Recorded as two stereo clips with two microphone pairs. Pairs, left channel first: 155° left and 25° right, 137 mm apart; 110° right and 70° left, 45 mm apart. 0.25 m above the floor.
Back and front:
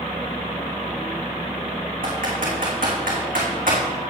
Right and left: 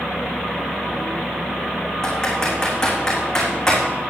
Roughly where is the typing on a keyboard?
Ahead right.